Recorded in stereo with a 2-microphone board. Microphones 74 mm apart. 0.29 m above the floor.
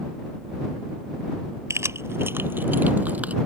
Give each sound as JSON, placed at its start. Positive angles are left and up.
{"t": 1.7, "sound": "keys jangling", "side_deg": -40}